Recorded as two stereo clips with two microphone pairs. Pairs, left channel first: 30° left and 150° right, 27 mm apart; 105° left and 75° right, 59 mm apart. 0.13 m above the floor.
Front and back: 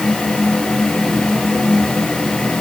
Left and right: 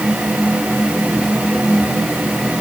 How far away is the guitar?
No guitar in this recording.